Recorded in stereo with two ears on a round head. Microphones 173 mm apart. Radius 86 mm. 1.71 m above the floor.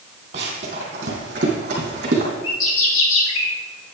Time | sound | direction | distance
0.3 | running footsteps | 35° right (ahead or behind) | 3 m
2.4 | a bird | 75° left (ahead or behind) | 1.8 m